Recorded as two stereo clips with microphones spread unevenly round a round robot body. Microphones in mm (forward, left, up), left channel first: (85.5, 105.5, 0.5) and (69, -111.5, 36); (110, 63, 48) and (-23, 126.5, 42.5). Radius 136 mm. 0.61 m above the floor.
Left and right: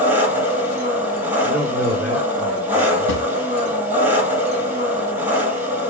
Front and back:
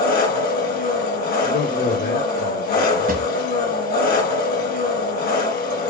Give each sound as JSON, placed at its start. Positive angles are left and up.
{"t": 0.0, "sound": "an engine running", "azimuth_deg": -15, "distance_m": 5.5}
{"t": 1.4, "sound": "a man speaking", "azimuth_deg": -5, "distance_m": 2.5}
{"t": 3.1, "sound": "a drawer", "azimuth_deg": 135, "distance_m": 1.4}